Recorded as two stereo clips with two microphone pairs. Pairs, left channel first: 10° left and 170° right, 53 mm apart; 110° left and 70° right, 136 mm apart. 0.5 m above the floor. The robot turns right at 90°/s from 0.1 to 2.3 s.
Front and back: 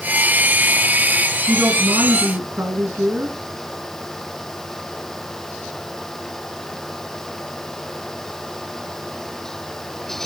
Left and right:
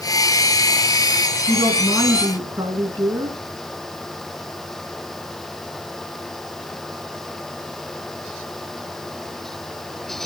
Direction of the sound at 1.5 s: 150° left.